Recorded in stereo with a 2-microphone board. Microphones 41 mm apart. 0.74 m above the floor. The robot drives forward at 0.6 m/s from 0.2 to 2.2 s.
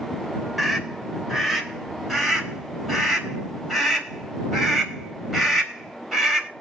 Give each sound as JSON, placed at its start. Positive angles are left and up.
{"t": 0.6, "sound": "a scream", "side_deg": -5, "distance_m": 3.0}